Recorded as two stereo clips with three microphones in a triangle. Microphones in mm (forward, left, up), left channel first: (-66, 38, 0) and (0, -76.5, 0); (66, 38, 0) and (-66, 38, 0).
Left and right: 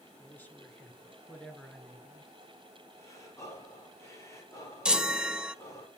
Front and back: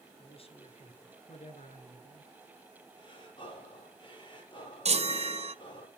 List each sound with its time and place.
0.2 s a man speaking: 45° left, 5 m; by 2.3 s 25° left, 4 m
3.0 s breathing: 50° left, 8 m
4.8 s a chime: 145° right, 1.2 m